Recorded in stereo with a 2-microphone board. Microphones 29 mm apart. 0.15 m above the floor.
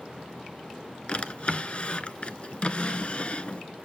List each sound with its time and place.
1.1 s a drawer: 45° left (ahead or behind), 0.5 m